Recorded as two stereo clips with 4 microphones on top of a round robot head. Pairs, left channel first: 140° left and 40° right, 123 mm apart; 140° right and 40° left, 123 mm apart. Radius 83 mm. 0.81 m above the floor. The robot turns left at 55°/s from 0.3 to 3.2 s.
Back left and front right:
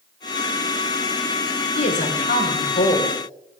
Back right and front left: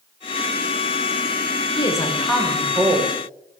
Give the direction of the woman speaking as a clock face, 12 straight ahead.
6 o'clock.